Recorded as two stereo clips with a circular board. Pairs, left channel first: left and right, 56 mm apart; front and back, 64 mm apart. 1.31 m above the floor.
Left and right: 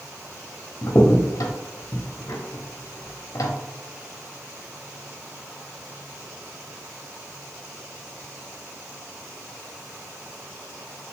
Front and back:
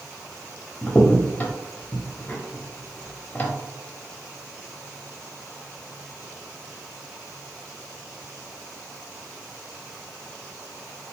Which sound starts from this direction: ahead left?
A crack, at 0.8 s.